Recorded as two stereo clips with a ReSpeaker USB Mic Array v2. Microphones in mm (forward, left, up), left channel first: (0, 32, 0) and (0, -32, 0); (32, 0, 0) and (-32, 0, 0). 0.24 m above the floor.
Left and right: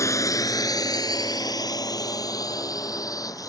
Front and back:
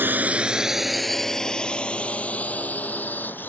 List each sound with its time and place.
0.0 s a drone: 125° left; by 3.5 s 60° left